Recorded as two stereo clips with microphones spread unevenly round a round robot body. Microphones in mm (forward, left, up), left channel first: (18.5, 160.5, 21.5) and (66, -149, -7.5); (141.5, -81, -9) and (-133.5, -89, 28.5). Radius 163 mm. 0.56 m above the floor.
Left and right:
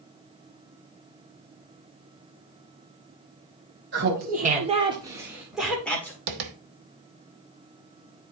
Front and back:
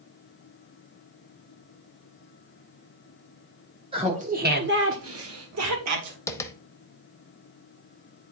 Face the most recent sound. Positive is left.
turn(degrees=-80)